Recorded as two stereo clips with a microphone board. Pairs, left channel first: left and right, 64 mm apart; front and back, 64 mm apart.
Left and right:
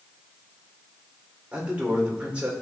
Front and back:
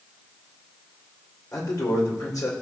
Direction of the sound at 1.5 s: 20° right.